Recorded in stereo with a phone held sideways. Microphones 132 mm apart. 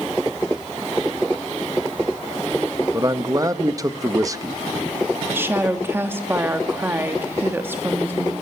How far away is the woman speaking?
About 2 m.